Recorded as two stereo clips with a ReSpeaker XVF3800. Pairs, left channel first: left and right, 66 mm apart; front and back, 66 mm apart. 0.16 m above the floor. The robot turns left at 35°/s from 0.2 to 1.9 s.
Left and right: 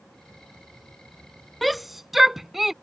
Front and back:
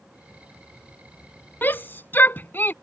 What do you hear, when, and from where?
1.6 s a shout: 5° left; by 2.7 s 5° right